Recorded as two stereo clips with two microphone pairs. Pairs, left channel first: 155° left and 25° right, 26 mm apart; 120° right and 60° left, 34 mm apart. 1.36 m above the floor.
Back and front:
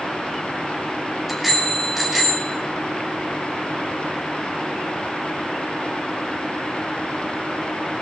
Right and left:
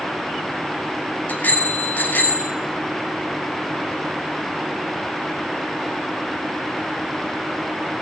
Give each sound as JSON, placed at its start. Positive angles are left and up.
{"t": 1.3, "sound": "a bicycle bell", "azimuth_deg": -110, "distance_m": 5.0}